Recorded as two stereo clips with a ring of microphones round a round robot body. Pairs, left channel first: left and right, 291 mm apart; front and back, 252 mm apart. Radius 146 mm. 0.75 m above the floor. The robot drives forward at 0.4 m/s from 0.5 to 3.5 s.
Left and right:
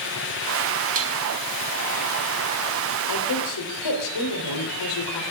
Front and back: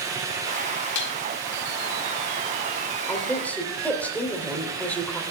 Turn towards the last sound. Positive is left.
turn(degrees=85)